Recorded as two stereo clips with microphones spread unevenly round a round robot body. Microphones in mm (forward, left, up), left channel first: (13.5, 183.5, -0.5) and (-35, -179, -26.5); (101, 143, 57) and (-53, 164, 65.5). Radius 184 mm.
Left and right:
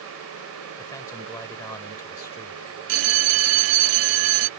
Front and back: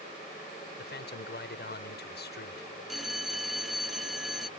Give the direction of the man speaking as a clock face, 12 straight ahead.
12 o'clock.